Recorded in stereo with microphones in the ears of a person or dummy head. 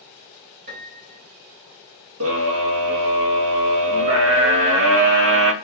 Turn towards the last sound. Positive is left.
turn(degrees=-75)  # may be behind; listen again after turning